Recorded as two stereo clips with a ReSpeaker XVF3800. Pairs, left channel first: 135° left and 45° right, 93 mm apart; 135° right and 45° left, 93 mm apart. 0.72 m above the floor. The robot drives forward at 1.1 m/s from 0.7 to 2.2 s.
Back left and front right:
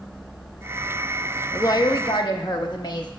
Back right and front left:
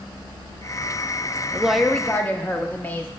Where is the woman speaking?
100° left, 0.5 m; by 3.1 s 160° left, 1.0 m.